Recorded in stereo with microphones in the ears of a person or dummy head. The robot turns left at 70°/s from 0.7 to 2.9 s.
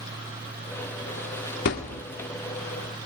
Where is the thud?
35° left (ahead or behind), 1.2 m; by 2.0 s 40° left (ahead or behind), 1.2 m.